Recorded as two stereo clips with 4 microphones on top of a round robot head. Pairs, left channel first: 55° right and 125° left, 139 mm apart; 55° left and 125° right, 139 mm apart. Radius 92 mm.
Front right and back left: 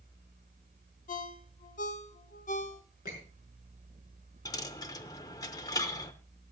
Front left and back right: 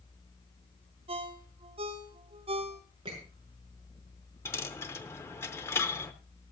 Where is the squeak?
70° right, 6.5 m.